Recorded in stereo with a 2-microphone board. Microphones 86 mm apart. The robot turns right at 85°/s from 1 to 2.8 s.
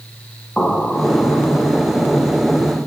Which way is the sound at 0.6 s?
Straight ahead.